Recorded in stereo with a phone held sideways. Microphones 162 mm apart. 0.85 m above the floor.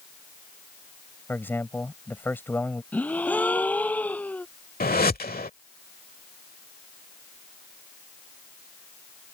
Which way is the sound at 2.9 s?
10° left (ahead or behind).